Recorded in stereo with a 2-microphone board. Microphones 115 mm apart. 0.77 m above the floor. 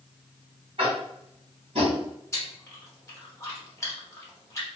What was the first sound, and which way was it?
Tapping, 55° right (ahead or behind).